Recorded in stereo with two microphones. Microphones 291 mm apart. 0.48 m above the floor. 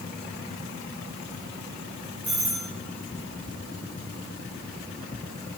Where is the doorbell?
5° right (ahead or behind), 3 m.